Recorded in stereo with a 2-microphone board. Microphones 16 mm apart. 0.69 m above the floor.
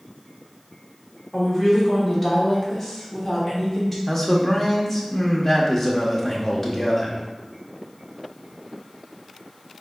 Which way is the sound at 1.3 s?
Centre (ahead or behind).